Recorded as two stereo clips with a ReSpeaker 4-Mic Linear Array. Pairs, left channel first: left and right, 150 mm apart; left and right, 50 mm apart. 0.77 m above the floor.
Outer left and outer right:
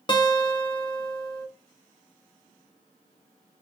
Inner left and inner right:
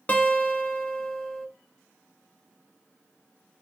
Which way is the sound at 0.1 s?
30° left (ahead or behind).